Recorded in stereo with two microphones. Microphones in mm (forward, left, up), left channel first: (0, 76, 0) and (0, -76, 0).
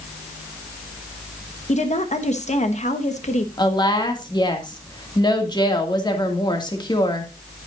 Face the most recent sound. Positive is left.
turn(degrees=25)  # may be behind; listen again after turning